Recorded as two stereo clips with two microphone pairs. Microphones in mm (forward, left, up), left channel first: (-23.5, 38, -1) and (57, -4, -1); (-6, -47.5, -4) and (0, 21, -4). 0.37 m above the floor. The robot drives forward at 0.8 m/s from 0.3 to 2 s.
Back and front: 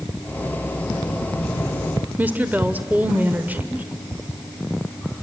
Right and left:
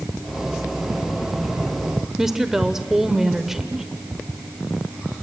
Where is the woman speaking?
10° left, 0.9 m.